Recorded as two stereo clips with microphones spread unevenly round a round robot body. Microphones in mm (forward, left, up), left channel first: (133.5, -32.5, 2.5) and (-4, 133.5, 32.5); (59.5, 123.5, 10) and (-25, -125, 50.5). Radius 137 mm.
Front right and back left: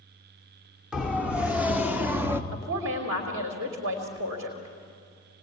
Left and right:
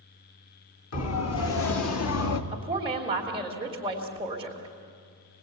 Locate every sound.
0.9 s a siren: 45° left, 3 m; by 2.4 s 50° left, 1.6 m
2.5 s a woman speaking: 175° left, 2.5 m